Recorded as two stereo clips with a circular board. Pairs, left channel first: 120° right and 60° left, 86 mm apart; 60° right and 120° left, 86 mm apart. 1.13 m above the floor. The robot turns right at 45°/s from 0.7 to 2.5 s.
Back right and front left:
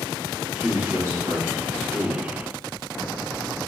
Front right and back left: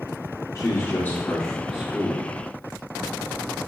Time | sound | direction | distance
0.6 | a man speaking | 10° right | 1.2 m